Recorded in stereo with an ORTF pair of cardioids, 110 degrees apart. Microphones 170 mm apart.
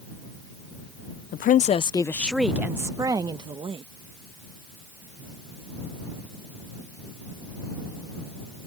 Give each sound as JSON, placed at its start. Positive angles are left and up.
{"t": 1.3, "sound": "a woman speaking", "azimuth_deg": 60}